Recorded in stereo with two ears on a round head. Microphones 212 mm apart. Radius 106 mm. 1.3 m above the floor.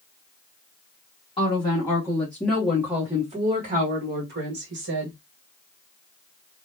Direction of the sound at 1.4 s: 25° left (ahead or behind).